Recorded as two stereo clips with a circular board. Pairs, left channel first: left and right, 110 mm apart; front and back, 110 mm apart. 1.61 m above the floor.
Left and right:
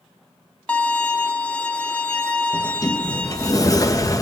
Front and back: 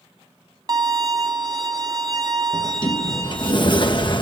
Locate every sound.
0.7 s a violin: 160° left, 1.3 m
2.5 s a sliding door: 35° left, 1.2 m